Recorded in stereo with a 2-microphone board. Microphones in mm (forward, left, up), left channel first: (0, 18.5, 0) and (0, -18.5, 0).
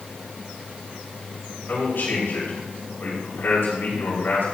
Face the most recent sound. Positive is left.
turn(degrees=70)  # may be behind; listen again after turning